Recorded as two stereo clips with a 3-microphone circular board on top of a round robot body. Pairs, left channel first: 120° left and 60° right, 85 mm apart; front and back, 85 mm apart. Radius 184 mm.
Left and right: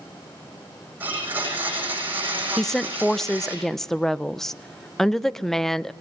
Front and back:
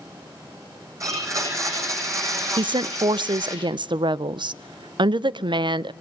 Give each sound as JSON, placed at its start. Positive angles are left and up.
{"t": 1.0, "sound": "a blender", "azimuth_deg": -130, "distance_m": 8.5}
{"t": 2.6, "sound": "a woman speaking", "azimuth_deg": -155, "distance_m": 0.5}